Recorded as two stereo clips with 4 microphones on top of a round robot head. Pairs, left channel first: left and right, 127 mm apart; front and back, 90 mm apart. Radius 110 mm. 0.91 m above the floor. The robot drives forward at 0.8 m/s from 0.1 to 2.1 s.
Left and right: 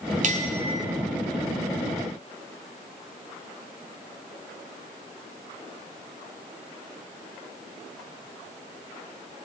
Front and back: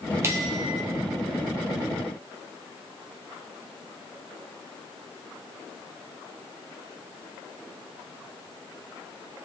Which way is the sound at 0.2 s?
115° right.